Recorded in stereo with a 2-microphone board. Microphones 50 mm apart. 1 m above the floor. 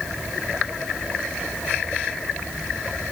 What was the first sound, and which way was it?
Only background noise.